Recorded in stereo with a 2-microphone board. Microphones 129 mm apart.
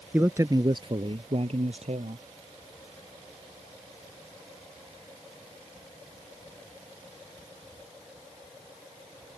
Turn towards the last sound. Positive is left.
turn(degrees=-60)  # may be behind; listen again after turning